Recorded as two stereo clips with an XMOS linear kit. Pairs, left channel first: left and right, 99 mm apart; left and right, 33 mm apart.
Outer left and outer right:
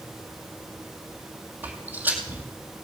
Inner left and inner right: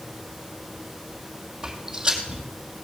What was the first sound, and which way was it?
Footsteps, 20° right (ahead or behind).